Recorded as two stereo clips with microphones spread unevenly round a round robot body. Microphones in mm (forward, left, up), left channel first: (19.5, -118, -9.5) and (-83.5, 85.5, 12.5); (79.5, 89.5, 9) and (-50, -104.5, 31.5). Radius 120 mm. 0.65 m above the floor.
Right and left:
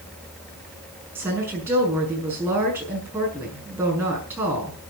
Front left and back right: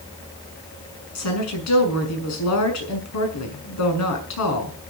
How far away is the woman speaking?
About 6.5 m.